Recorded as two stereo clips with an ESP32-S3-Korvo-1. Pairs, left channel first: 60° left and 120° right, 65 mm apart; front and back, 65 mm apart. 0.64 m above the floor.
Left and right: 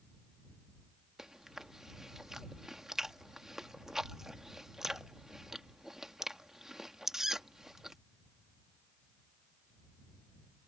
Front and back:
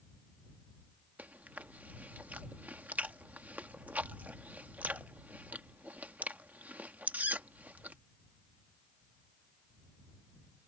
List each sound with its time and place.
1.2 s chewing: 165° left